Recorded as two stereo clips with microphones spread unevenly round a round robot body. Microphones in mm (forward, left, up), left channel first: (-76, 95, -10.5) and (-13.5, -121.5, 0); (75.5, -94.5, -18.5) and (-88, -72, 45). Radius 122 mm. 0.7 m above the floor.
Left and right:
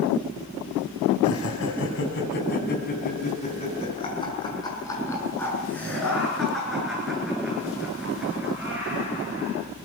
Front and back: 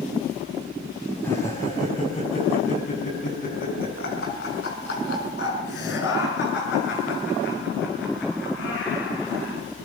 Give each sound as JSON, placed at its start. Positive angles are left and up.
{"t": 1.2, "sound": "laughter", "azimuth_deg": 70, "distance_m": 5.0}